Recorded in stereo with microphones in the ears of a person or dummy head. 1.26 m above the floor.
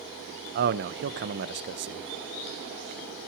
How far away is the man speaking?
About 0.9 m.